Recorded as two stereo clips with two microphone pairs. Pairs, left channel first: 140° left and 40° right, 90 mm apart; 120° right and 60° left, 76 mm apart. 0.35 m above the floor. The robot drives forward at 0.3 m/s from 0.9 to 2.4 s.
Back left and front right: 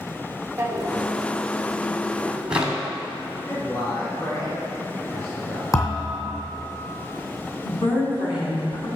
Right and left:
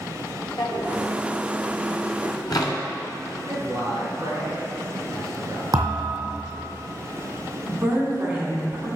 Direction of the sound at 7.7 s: 135° left.